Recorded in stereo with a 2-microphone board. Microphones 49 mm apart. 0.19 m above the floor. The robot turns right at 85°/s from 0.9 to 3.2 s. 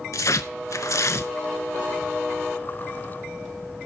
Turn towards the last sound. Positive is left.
turn(degrees=-75)